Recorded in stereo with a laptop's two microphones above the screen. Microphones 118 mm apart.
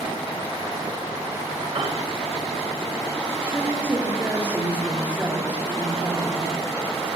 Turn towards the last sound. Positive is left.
turn(degrees=-15)  # may be behind; listen again after turning